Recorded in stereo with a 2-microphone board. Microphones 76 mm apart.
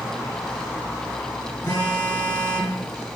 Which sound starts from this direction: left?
A phone buzzing, at 1.6 s.